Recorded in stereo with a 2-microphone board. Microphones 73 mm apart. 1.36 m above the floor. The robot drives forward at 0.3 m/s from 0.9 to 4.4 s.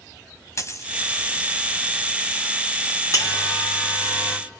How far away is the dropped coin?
About 2 m.